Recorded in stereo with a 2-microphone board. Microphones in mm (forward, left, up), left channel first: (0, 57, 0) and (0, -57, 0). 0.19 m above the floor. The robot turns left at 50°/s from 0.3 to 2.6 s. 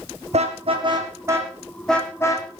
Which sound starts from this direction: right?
A car horn, at 0.3 s.